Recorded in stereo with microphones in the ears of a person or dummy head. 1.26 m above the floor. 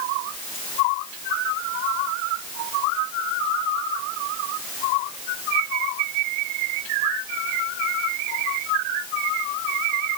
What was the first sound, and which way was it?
Only background noise.